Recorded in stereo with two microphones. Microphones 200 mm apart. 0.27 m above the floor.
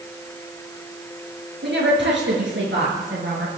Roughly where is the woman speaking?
Right.